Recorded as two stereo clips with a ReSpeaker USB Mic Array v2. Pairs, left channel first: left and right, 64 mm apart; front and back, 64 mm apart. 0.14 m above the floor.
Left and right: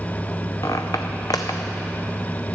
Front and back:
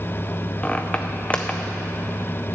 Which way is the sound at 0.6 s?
70° left.